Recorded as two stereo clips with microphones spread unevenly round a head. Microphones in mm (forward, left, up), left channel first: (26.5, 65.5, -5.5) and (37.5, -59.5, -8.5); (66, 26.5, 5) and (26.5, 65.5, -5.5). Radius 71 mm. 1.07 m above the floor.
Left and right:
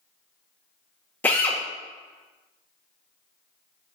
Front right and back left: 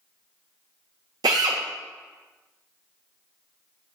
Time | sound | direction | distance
1.2 | a drill | 175° left | 0.7 m